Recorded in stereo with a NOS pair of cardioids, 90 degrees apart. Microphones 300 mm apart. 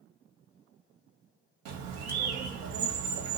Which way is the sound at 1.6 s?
70° right.